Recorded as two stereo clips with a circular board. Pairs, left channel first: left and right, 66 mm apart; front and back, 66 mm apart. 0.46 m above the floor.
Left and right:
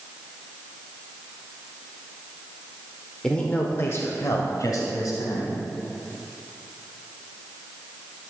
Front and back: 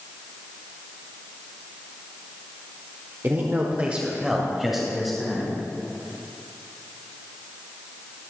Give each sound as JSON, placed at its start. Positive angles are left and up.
{"t": 3.2, "sound": "a man speaking", "azimuth_deg": 165, "distance_m": 1.0}